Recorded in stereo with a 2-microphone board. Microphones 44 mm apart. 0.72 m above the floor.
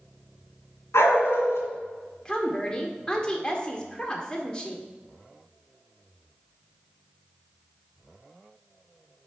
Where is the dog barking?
80° left, 2.5 m.